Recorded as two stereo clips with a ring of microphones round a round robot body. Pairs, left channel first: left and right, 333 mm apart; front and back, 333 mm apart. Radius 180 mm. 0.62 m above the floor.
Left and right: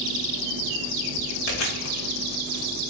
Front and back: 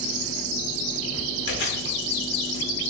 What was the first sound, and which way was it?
Chewing, 60° left.